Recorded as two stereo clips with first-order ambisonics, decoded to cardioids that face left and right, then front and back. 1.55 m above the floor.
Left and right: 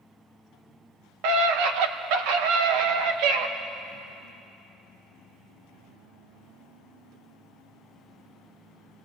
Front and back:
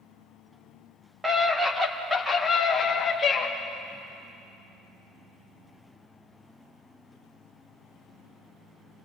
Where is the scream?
100° right, 2 m; by 3.5 s 70° right, 2.5 m.